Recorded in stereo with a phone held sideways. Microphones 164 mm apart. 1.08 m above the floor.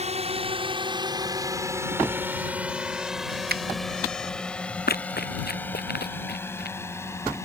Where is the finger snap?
70° right (ahead or behind).